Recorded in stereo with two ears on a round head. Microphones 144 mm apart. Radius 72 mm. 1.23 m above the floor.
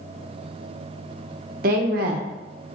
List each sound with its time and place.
1.6 s a woman speaking: 55° right (ahead or behind), 0.9 m